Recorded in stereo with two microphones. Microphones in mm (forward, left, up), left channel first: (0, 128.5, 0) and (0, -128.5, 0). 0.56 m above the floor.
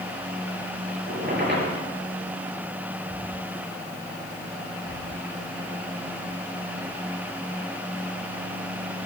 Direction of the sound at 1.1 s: 40° right (ahead or behind).